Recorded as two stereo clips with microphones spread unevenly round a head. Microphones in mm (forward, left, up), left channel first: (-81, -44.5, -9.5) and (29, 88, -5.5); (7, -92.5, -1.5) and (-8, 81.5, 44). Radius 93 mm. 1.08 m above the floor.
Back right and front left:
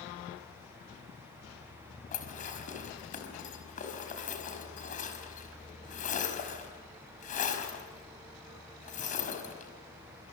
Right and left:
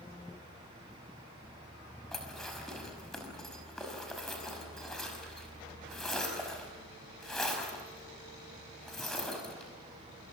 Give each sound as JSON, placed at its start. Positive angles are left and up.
{"t": 2.1, "sound": "dishes clattering", "azimuth_deg": -175, "distance_m": 5.0}